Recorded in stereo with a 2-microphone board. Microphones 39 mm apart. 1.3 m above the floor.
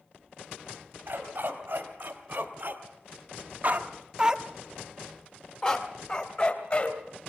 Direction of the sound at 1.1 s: 55° right (ahead or behind).